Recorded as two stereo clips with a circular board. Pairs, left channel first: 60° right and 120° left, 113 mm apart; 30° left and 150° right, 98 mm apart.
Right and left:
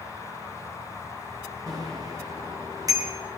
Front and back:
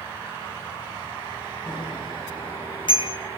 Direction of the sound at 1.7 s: 65° left.